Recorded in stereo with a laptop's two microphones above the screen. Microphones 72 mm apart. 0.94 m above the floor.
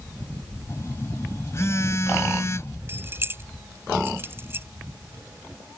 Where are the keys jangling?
30° right (ahead or behind).